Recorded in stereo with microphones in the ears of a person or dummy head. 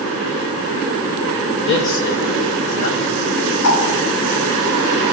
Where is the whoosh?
70° left (ahead or behind), 3.5 m.